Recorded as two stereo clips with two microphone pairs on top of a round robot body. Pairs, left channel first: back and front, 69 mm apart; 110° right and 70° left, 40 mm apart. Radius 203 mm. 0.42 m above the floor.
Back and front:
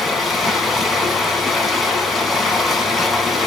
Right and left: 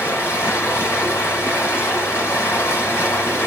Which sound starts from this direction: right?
Running water, at 0.0 s.